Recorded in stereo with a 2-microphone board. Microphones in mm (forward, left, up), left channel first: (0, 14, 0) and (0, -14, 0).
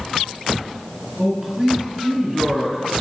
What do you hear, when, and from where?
1.2 s a man speaking: 10° right (ahead or behind), 5 m